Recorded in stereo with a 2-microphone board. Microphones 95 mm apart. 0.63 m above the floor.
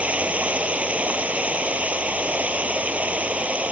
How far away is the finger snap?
No finger snap in this recording.